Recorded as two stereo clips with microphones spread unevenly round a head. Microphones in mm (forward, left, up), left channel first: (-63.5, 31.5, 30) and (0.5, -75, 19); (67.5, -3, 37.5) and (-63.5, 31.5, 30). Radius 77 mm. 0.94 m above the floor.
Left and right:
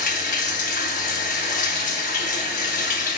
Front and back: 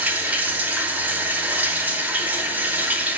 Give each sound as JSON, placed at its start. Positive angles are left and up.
{"t": 0.0, "sound": "running water", "azimuth_deg": 85, "distance_m": 1.1}